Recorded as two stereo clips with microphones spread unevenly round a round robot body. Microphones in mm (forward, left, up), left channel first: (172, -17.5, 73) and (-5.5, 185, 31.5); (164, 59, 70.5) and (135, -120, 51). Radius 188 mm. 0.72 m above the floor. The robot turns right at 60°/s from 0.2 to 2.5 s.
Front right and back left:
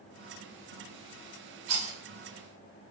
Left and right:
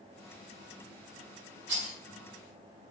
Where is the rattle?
165° left, 4.5 m; by 1.9 s straight behind, 4.5 m.